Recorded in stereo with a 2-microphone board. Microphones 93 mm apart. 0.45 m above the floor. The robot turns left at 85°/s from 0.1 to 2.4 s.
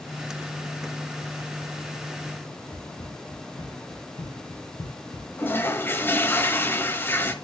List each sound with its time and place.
2.7 s running footsteps: 60° left (ahead or behind), 6.5 m; by 5.3 s 80° left, 4.5 m
5.4 s a toilet flushing: 25° left (ahead or behind), 1.2 m